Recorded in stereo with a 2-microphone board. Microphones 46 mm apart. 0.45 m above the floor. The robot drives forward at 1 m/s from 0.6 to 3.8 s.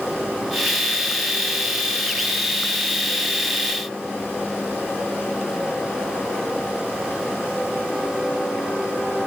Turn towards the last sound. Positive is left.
No sound to turn to.